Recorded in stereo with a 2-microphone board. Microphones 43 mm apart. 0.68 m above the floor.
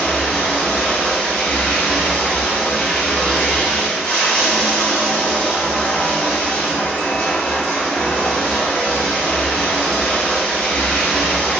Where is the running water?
25° left (ahead or behind), 0.8 m.